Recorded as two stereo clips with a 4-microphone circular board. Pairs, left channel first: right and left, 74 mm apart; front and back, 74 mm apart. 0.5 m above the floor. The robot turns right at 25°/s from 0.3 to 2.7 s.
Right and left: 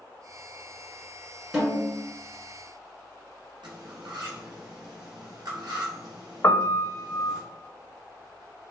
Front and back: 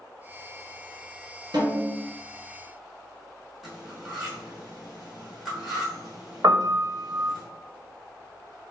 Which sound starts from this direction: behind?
A snare drum, at 1.5 s.